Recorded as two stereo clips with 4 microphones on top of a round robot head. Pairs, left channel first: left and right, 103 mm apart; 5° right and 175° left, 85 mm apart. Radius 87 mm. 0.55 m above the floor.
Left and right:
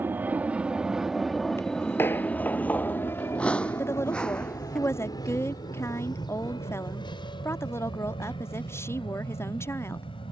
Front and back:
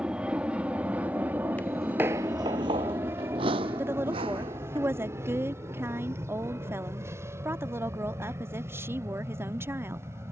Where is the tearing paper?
I don't hear tearing paper.